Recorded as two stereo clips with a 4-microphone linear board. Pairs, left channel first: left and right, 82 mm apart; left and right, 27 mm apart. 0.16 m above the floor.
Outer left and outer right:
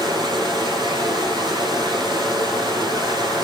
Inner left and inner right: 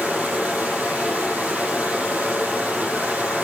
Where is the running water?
70° right (ahead or behind), 5.5 m.